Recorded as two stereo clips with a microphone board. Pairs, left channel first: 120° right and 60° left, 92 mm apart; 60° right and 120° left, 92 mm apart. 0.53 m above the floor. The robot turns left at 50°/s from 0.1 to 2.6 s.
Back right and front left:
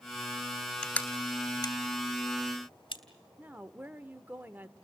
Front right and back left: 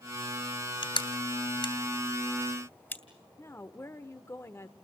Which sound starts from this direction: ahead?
A woman speaking, at 3.4 s.